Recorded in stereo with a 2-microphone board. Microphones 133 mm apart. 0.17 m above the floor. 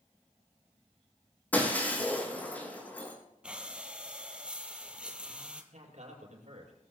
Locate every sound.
1.5 s breaking glass: 10° left (ahead or behind), 5.5 m
3.4 s breathing: 10° right (ahead or behind), 1.5 m
5.7 s a man speaking: 60° right (ahead or behind), 5.5 m